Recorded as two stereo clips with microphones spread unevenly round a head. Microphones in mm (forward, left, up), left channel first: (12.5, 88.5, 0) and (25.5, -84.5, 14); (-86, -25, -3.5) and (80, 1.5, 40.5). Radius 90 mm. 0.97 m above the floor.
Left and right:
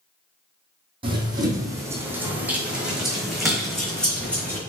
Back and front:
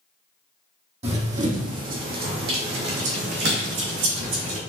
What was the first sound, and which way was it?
Running footsteps, 30° right.